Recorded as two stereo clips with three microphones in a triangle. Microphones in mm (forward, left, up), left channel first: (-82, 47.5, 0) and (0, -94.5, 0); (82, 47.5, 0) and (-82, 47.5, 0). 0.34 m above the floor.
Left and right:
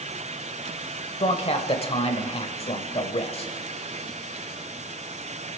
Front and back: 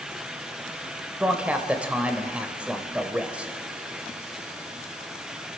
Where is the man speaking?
100° left, 1.0 m.